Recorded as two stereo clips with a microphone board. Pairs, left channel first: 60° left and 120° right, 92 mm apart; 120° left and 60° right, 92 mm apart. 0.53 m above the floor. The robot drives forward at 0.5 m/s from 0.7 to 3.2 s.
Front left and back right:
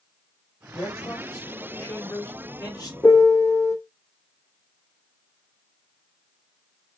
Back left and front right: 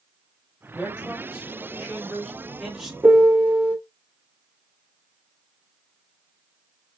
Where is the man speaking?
15° left, 2.5 m; by 2.9 s 25° left, 1.5 m.